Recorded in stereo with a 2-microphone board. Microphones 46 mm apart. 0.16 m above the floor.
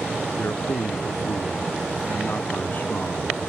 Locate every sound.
0.4 s a man speaking: 55° left (ahead or behind); by 3.5 s 30° left (ahead or behind)